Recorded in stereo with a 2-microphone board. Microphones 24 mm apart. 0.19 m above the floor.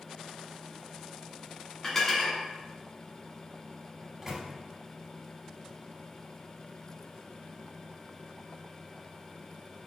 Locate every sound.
1.8 s dishes clattering: 25° left (ahead or behind), 1.2 m
4.0 s a microwave: 15° right (ahead or behind), 0.9 m